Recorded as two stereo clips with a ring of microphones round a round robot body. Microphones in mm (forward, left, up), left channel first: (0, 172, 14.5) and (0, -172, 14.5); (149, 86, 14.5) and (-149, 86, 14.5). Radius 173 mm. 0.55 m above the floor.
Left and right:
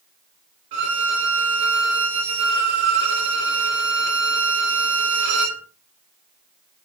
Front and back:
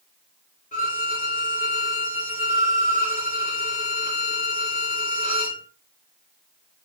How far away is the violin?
About 1.9 m.